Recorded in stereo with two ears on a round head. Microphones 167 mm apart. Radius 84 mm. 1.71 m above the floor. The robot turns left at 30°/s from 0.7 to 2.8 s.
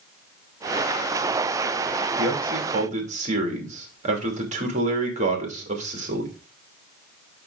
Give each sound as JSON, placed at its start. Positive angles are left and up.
{"t": 2.2, "sound": "a man speaking", "side_deg": -60, "distance_m": 2.5}